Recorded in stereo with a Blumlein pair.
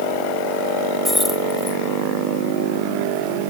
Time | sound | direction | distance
1.1 | keys jangling | 5° left | ?